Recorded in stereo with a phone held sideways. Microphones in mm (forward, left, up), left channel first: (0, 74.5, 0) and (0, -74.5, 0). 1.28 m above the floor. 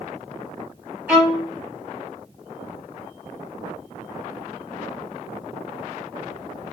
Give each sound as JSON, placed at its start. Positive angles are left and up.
{"t": 1.1, "sound": "a violin", "side_deg": -10, "distance_m": 1.5}